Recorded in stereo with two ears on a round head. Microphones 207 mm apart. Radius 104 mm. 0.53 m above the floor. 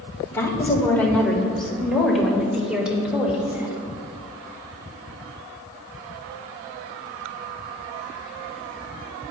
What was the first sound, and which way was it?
A woman speaking, 15° left (ahead or behind).